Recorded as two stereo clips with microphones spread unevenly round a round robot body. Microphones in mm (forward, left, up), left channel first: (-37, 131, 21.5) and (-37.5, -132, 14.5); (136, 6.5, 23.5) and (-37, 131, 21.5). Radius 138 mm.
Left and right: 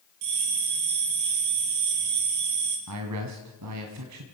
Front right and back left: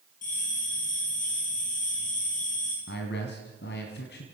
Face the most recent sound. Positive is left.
turn(degrees=-80)